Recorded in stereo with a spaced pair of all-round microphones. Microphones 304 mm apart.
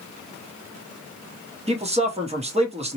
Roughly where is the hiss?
No hiss in this recording.